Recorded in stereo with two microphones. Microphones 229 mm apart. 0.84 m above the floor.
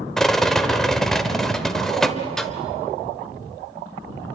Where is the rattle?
Centre (ahead or behind), 1.3 m.